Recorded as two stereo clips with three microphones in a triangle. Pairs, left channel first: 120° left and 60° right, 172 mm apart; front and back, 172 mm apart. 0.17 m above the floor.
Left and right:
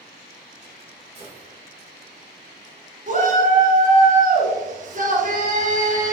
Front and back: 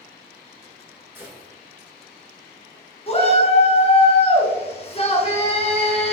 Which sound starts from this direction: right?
A gunshot, at 1.1 s.